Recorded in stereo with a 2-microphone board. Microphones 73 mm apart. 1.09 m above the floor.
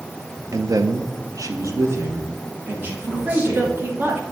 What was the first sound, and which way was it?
A man speaking, 50° right (ahead or behind).